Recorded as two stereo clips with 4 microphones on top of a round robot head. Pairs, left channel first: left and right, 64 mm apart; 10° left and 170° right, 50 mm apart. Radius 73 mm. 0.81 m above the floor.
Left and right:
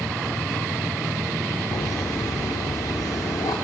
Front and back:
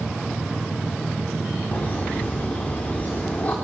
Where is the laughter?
70° left, 3 m.